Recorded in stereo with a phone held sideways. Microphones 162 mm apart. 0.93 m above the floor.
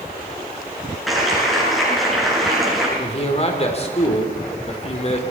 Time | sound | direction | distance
1.1 | a clap | centre (ahead or behind) | 8 m
3.0 | a man speaking | 40° left (ahead or behind) | 3.5 m